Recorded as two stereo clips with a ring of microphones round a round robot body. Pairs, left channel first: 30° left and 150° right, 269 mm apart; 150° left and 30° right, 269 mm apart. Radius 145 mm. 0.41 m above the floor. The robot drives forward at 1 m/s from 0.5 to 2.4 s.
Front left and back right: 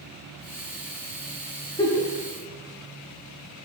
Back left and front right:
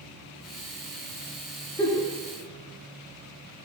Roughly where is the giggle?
Left.